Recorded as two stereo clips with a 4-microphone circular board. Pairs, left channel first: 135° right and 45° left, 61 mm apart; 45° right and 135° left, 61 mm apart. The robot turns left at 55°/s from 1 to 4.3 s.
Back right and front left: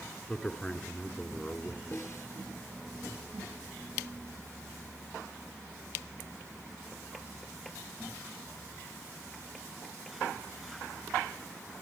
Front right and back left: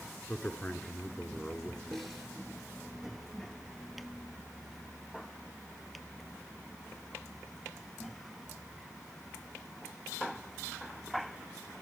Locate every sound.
0.3 s a man speaking: 60° right, 1.6 m; by 2.1 s 120° right, 1.6 m
1.9 s a snare drum: 125° right, 2 m; by 2.3 s 145° right, 2 m